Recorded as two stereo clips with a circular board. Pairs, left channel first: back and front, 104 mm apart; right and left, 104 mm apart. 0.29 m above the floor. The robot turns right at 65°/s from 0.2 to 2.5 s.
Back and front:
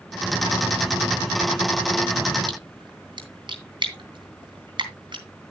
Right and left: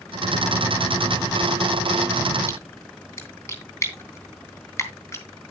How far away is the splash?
About 2.5 m.